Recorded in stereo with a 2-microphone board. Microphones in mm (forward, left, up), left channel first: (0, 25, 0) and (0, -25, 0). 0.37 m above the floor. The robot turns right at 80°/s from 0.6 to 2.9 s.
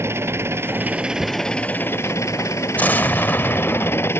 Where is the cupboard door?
20° right (ahead or behind); by 1.4 s 45° right (ahead or behind).